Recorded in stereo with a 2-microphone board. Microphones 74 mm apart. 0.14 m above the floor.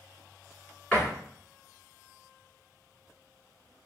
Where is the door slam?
15° left (ahead or behind), 1.4 m.